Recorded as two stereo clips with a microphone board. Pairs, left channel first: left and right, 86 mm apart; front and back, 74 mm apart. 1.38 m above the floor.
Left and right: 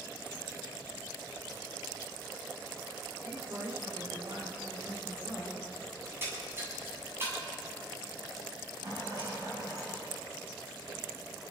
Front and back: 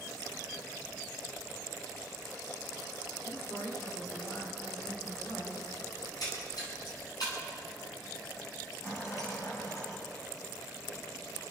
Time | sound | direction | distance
3.2 | a woman speaking | 40° right | 5.5 m
6.0 | a splash | 30° right | 8 m
8.8 | a rattle | 45° right | 7.5 m